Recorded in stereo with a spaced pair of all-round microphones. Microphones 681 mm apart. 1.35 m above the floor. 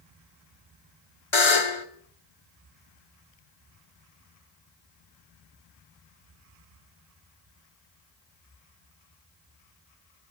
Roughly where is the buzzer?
Left.